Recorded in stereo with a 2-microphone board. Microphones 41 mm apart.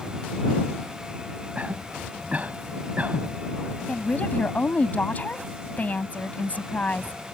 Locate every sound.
1.6 s a cough: 35° right (ahead or behind)
3.9 s a woman speaking: 40° left (ahead or behind)